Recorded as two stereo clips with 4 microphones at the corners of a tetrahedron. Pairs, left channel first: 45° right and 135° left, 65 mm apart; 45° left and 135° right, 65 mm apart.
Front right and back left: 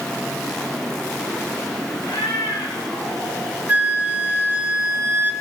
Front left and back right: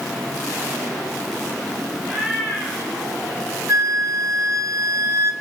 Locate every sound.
2.0 s a cat meowing: 65° right, 5 m
3.7 s a flute: 165° right, 1.3 m